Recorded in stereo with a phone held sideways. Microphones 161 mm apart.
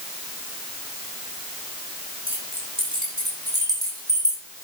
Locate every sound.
2.3 s keys jangling: 35° right (ahead or behind), 8 m; by 4.4 s 15° right (ahead or behind), 7 m